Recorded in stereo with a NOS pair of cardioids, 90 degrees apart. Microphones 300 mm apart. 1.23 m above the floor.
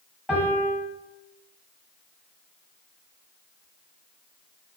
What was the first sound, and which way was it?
A piano, straight ahead.